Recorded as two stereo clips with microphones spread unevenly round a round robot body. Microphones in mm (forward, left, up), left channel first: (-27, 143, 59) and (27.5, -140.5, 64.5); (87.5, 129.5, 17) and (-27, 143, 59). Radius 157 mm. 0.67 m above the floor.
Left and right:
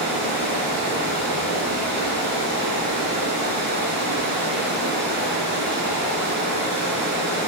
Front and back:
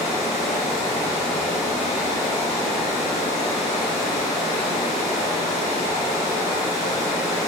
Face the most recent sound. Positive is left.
turn(degrees=-25)